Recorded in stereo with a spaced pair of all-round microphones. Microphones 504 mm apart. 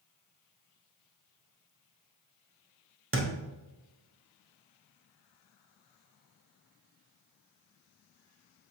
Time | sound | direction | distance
3.1 | a thud | 25° right (ahead or behind) | 0.7 m